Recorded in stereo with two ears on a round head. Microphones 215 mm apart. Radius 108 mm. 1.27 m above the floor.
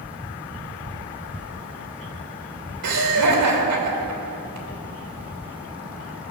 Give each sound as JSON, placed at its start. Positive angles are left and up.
{"t": 2.8, "sound": "laughter", "side_deg": -80, "distance_m": 3.0}